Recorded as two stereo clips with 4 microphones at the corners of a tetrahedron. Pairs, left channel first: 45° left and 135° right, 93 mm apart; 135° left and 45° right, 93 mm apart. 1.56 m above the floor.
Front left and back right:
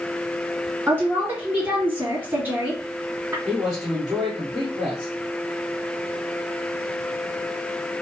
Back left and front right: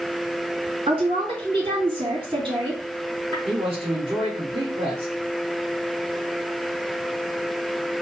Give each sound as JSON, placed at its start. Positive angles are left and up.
{"t": 0.9, "sound": "a woman speaking", "azimuth_deg": -65, "distance_m": 3.0}
{"t": 3.5, "sound": "a man speaking", "azimuth_deg": -75, "distance_m": 2.5}